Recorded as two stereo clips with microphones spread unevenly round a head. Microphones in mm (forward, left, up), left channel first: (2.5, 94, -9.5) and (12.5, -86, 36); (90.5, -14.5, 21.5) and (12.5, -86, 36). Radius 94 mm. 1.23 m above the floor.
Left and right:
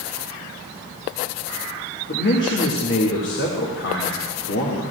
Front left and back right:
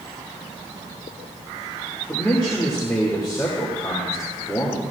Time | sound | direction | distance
2.1 | a man speaking | 120° left | 1.9 m